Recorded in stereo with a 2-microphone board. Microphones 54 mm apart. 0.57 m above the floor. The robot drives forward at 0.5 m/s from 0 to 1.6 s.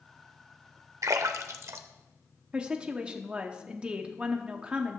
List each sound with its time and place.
1.0 s a splash: 85° right, 0.6 m; by 3.1 s 60° right (ahead or behind), 0.7 m
2.5 s a woman speaking: 20° right (ahead or behind), 0.6 m